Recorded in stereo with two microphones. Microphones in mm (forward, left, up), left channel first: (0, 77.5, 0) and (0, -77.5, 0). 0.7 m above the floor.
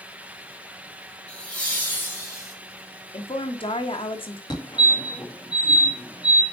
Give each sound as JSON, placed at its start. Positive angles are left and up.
{"t": 1.3, "sound": "laughter", "side_deg": 10, "distance_m": 3.5}
{"t": 3.1, "sound": "a woman speaking", "side_deg": 35, "distance_m": 1.2}
{"t": 4.5, "sound": "a fire alarm", "side_deg": 25, "distance_m": 1.7}